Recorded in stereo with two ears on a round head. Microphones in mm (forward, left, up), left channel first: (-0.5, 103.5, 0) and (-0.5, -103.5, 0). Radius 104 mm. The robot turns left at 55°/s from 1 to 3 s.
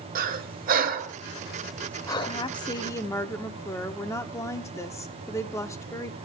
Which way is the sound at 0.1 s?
40° right (ahead or behind).